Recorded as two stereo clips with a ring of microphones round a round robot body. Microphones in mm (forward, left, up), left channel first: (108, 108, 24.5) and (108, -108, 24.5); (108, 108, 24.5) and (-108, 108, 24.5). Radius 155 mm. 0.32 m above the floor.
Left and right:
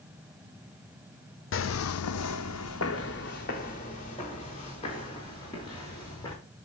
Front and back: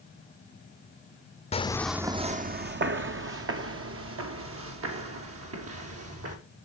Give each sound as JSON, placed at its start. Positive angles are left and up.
{"t": 1.5, "sound": "footsteps", "azimuth_deg": 65, "distance_m": 0.9}